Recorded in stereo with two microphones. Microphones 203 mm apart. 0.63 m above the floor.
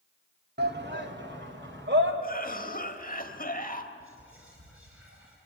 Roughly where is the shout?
Right.